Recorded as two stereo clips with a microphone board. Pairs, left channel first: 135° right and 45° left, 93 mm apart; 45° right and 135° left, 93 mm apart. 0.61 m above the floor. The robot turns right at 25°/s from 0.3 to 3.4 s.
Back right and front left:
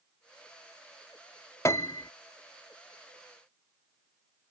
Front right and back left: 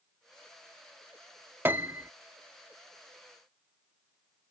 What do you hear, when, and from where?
1.6 s a piano: 170° right; by 2.1 s 160° right